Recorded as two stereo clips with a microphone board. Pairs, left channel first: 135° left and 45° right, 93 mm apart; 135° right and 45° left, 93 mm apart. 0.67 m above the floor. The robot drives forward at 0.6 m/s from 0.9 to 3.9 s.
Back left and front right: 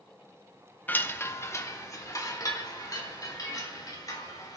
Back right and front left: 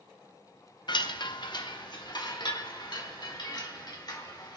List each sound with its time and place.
0.9 s a chime: 155° right, 0.5 m; by 4.6 s 175° right, 2 m